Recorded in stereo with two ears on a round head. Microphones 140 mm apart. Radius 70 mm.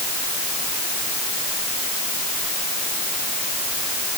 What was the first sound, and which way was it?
Only background noise.